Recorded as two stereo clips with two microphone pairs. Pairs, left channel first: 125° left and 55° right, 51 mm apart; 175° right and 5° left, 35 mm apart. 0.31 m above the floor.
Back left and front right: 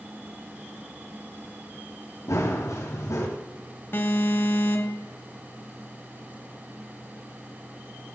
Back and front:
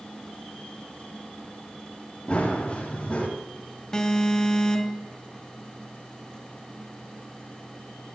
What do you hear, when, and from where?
2.3 s running footsteps: 130° left, 6.5 m
3.9 s an alarm: 115° left, 2 m